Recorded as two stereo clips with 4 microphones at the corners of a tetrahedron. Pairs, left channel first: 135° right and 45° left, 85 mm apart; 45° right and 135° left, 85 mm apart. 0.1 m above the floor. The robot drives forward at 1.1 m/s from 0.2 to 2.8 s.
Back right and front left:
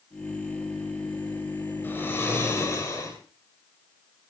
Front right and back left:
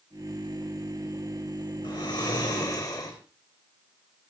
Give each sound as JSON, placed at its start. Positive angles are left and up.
{"t": 1.8, "sound": "snoring", "azimuth_deg": -70, "distance_m": 4.0}